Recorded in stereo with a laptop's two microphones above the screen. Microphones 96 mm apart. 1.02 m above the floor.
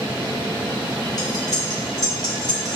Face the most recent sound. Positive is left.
turn(degrees=40)  # may be behind; listen again after turning